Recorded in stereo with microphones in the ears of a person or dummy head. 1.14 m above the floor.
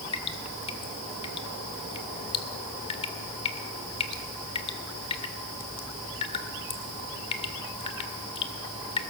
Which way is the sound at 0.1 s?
30° left (ahead or behind).